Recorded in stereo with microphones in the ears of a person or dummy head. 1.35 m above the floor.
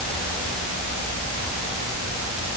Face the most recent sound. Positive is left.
No sound to turn to.